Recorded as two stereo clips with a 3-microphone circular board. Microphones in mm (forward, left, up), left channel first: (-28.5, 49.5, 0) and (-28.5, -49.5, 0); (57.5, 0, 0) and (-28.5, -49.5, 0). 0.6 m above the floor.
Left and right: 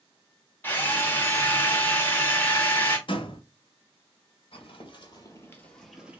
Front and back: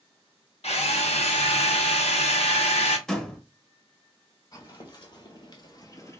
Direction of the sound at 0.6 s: 20° left.